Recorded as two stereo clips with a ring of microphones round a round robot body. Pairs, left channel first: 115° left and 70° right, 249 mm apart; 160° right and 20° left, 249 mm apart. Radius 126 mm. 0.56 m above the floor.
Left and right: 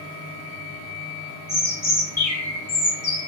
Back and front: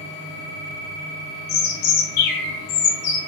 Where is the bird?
165° right, 0.7 m.